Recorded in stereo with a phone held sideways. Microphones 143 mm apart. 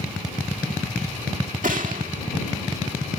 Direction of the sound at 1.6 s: 70° right (ahead or behind).